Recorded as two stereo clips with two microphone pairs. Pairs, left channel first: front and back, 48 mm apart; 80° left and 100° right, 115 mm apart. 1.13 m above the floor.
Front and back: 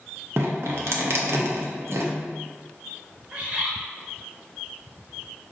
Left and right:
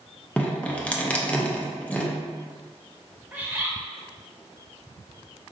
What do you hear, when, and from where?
0.4 s dripping: 160° left, 0.6 m
3.3 s a bird: 160° right, 0.9 m